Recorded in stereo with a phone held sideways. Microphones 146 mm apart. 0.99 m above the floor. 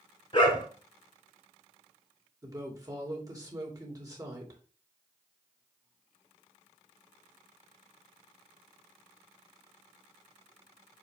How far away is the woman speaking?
About 2.5 m.